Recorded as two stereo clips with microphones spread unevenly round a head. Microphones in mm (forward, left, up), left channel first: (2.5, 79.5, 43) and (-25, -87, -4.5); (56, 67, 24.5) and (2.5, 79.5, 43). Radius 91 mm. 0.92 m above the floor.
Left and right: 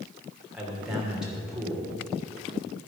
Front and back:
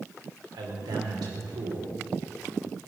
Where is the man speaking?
175° left, 3 m.